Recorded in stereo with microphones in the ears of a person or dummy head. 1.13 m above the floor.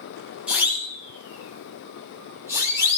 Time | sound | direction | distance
0.5 | a siren | 10° right (ahead or behind) | 9.5 m